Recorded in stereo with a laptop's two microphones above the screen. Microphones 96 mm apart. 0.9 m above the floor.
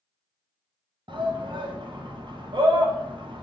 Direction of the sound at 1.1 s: 55° right (ahead or behind).